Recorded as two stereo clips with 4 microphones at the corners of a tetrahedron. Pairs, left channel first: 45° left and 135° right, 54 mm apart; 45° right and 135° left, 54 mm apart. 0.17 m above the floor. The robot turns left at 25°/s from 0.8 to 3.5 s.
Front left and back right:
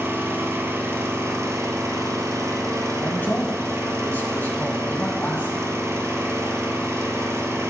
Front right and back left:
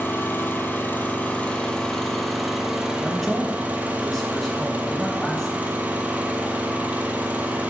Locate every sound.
0.0 s an engine running: 95° right, 1.2 m; by 7.7 s 165° right, 1.2 m
3.0 s a man speaking: 45° left, 1.5 m; by 5.7 s 30° left, 1.5 m